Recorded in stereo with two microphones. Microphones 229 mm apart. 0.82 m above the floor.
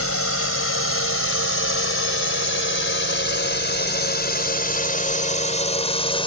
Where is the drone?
75° left (ahead or behind); by 6.3 s 25° left (ahead or behind).